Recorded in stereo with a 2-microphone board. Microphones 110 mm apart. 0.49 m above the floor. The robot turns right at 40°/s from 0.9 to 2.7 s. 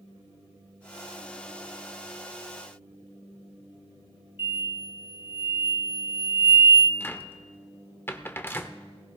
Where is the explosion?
50° left (ahead or behind), 2.5 m.